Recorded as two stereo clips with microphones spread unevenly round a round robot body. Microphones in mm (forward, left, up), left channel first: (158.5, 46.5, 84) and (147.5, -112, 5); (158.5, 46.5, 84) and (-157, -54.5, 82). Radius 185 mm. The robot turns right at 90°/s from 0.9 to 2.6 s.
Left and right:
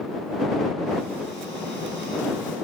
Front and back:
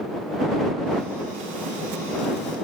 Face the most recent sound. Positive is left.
No sound to turn to.